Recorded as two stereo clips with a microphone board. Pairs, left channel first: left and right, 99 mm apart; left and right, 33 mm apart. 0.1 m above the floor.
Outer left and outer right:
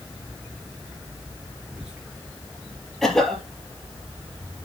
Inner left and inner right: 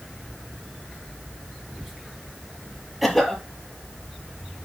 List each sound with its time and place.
1.6 s whispering: 10° right (ahead or behind), 6 m
3.0 s a cough: 5° left (ahead or behind), 3 m